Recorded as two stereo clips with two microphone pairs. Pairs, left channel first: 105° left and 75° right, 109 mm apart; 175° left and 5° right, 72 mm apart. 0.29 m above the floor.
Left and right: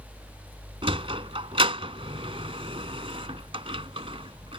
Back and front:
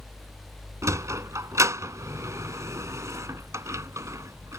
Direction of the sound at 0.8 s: 50° right.